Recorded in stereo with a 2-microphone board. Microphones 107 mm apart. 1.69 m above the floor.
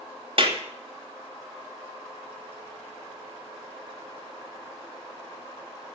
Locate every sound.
0.4 s a clap: 55° right (ahead or behind), 2.5 m